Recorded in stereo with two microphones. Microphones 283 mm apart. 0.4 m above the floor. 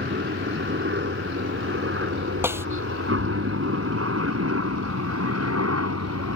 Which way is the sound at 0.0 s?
40° right (ahead or behind).